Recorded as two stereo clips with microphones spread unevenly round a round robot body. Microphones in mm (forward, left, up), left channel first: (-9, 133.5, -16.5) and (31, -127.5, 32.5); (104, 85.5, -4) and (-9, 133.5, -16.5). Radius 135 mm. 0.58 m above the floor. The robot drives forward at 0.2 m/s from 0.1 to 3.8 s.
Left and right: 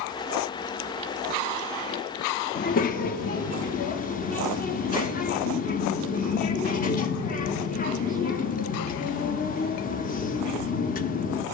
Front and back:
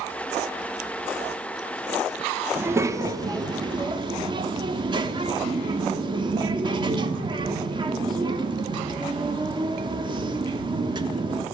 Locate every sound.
2.5 s a child speaking: 105° left, 0.6 m; by 11.4 s 135° left, 0.7 m